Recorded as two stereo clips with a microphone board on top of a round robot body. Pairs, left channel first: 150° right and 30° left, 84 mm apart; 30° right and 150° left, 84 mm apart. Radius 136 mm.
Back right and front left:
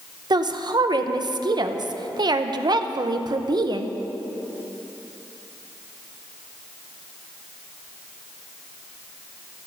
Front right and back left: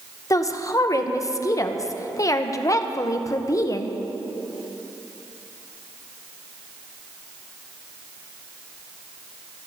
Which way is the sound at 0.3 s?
10° left.